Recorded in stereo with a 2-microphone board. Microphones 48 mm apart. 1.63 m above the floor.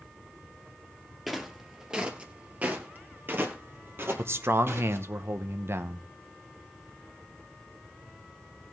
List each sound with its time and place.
1.3 s footsteps: 5° right (ahead or behind), 2.0 m; by 5.1 s 55° right (ahead or behind), 3 m
4.2 s a man speaking: 60° right (ahead or behind), 0.9 m